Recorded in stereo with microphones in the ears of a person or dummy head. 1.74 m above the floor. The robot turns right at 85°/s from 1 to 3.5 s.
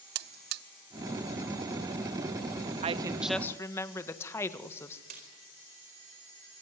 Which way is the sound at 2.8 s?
40° right.